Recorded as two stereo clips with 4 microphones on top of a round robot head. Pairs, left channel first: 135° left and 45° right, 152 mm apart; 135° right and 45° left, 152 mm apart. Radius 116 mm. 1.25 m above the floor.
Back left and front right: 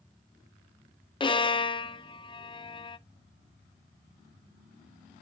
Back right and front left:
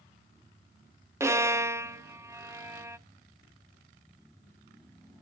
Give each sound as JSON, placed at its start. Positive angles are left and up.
{"t": 1.2, "sound": "a violin", "azimuth_deg": 105, "distance_m": 0.5}